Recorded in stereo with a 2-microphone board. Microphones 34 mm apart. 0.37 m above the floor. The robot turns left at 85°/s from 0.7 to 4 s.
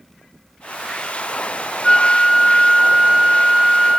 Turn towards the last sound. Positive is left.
turn(degrees=-10)  # may be behind; listen again after turning